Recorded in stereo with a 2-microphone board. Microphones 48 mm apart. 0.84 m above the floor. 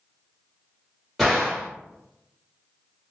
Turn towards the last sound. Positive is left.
turn(degrees=-10)  # may be behind; listen again after turning